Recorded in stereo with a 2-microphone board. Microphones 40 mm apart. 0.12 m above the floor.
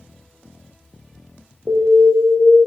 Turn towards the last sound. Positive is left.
turn(degrees=-35)  # may be behind; listen again after turning